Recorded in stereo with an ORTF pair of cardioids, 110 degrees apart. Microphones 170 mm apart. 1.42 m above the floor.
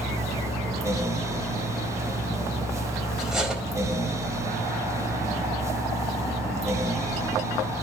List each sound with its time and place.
0.0 s a fan: 20° right, 1.3 m
3.2 s cutlery clinking: 5° right, 4.5 m